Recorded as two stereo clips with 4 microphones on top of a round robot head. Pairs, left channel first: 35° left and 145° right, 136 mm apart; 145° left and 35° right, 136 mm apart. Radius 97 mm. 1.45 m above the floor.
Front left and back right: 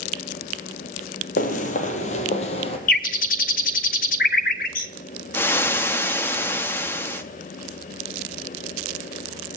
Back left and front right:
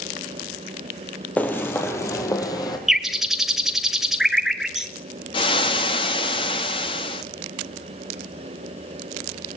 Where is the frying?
105° left, 1.0 m.